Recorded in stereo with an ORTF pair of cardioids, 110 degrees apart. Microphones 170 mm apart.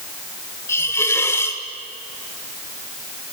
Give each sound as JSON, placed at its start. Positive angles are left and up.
{"t": 0.7, "sound": "a hiss", "azimuth_deg": 15, "distance_m": 2.0}